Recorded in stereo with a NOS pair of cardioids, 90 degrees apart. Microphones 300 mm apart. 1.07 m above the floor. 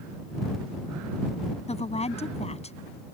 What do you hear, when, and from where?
1.7 s a woman speaking: 20° left